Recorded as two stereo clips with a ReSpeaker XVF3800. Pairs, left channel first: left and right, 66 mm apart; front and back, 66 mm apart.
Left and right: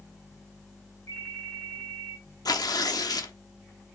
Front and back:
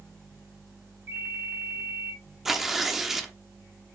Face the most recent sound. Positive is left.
turn(degrees=95)